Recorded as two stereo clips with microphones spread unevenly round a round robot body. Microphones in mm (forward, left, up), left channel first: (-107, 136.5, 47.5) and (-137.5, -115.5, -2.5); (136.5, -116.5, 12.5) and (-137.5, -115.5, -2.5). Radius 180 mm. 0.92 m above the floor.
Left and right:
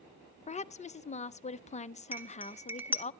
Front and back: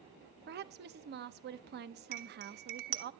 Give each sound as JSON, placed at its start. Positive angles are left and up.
{"t": 0.5, "sound": "a woman speaking", "azimuth_deg": 150, "distance_m": 0.6}
{"t": 2.1, "sound": "cutlery clinking", "azimuth_deg": 180, "distance_m": 1.2}